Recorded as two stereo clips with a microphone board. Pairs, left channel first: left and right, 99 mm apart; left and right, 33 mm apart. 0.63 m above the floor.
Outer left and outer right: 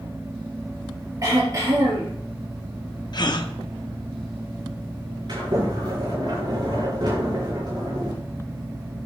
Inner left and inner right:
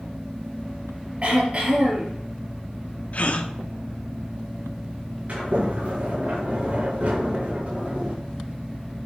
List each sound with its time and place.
1.2 s throat clearing: 35° right (ahead or behind), 4 m
3.1 s a gasp: 50° left (ahead or behind), 0.7 m
5.3 s a sliding door: 50° right (ahead or behind), 5 m